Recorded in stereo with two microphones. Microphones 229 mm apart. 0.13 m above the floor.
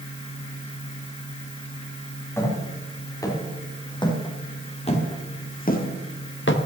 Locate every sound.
2.4 s footsteps: 10° left (ahead or behind), 4.5 m; by 6.6 s 60° left (ahead or behind), 1.6 m